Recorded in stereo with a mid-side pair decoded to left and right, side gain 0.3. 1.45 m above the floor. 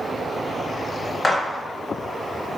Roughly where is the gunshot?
Ahead left.